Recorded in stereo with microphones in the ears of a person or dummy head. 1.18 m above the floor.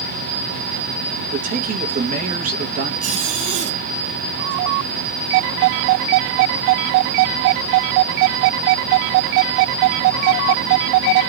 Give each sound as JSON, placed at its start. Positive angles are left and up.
{"t": 1.3, "sound": "a man speaking", "side_deg": -40, "distance_m": 1.0}
{"t": 3.0, "sound": "a zipper", "side_deg": -35, "distance_m": 0.5}